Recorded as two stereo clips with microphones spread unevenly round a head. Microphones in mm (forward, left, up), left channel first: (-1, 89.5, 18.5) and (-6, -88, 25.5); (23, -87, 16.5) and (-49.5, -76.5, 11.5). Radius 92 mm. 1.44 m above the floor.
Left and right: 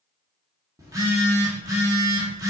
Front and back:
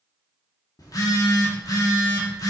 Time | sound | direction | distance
0.8 | a phone buzzing | 25° right | 1.4 m